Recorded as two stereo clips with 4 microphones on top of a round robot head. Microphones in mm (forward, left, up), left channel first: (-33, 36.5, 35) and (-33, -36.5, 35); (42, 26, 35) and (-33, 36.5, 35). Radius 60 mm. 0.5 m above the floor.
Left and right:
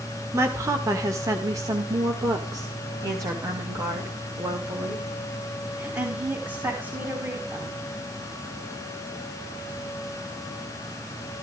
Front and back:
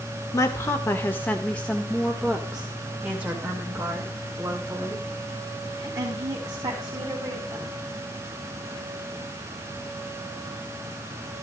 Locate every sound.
0.3 s a woman speaking: 45° right, 1.9 m; by 7.8 s 145° right, 5 m